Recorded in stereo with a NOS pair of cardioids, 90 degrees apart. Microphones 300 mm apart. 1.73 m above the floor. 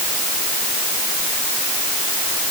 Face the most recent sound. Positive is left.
No sound to turn to.